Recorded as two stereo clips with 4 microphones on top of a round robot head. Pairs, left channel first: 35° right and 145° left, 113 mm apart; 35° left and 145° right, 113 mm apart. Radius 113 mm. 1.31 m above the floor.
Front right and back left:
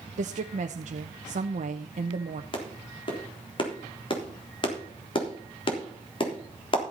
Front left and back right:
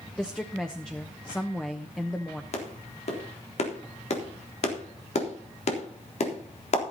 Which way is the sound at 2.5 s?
10° left.